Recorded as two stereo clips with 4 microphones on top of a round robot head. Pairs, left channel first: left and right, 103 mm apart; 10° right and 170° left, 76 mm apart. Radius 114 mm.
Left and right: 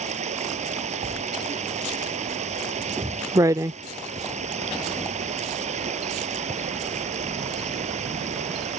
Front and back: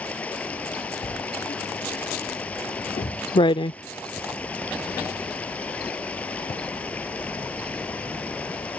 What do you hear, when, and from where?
0.0 s running water: 85° right
1.0 s writing: 30° right